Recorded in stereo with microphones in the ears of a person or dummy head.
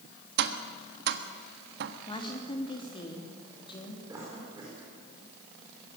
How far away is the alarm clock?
No alarm clock in this recording.